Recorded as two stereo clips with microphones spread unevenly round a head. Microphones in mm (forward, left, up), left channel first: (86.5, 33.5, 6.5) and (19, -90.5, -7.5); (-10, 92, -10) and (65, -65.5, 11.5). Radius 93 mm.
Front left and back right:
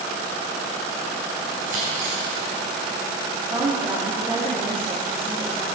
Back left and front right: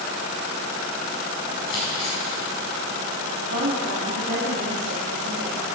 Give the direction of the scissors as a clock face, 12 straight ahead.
6 o'clock.